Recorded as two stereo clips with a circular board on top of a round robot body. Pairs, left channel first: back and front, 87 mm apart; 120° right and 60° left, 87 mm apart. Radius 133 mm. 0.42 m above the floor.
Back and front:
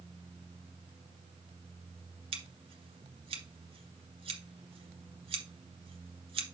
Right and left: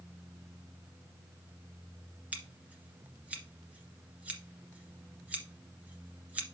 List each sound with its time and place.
2.3 s scissors: 15° right, 1.9 m